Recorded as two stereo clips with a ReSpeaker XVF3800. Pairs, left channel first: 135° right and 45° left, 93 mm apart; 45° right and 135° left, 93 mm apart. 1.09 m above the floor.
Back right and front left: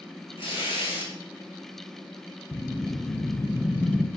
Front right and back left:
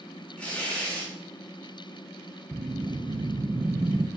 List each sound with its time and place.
0.4 s tearing paper: 120° right, 2 m
2.5 s a whoosh: 155° left, 0.6 m